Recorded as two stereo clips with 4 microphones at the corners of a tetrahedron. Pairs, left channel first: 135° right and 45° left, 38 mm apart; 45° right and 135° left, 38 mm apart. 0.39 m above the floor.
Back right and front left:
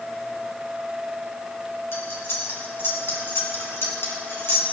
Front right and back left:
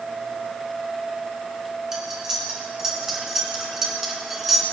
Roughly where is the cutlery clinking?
Behind right.